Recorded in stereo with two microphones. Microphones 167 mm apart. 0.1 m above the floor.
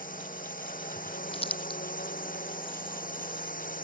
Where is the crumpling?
35° left (ahead or behind).